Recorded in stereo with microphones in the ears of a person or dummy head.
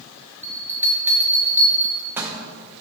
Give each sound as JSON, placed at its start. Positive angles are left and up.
{"t": 0.4, "sound": "a bell", "side_deg": -15, "distance_m": 0.6}